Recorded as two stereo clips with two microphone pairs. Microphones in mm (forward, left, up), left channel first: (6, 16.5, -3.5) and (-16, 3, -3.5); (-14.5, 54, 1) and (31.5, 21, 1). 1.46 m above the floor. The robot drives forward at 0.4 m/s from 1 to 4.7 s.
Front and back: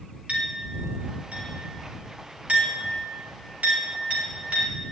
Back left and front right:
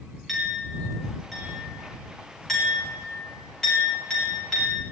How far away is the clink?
About 4 m.